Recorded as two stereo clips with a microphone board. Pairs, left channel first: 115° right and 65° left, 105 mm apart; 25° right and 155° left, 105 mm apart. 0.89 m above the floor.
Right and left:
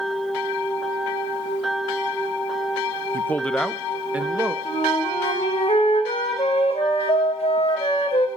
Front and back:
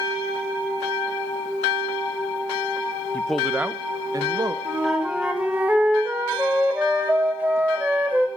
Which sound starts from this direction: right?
A man speaking, at 3.1 s.